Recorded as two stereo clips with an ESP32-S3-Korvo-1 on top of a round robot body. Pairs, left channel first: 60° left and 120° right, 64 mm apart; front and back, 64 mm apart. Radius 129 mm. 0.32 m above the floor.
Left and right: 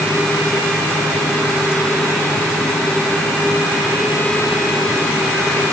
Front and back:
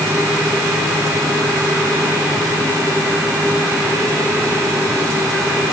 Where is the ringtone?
I don't hear a ringtone.